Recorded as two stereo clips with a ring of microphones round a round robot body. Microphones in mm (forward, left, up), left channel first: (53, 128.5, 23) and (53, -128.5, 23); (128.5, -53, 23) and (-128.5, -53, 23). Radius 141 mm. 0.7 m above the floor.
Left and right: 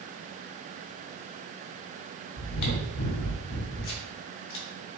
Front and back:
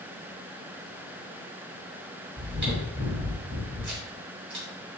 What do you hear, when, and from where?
2.4 s chewing: 105° left, 2.5 m